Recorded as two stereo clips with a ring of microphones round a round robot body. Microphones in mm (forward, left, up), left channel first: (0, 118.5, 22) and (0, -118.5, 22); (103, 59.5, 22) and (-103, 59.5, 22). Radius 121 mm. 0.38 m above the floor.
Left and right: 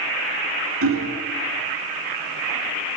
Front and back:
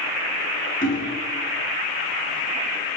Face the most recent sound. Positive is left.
turn(degrees=-55)